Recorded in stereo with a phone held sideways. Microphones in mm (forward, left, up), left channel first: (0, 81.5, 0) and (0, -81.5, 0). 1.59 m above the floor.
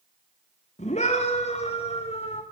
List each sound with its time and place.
0.8 s a scream: 45° left (ahead or behind), 3.5 m; by 2.4 s 40° left (ahead or behind), 6 m